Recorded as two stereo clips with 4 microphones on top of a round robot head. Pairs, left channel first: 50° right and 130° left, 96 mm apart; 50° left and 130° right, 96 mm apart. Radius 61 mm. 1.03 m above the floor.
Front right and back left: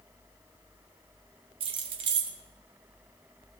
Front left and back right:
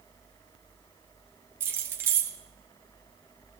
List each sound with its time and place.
1.6 s keys jangling: 165° left, 1.1 m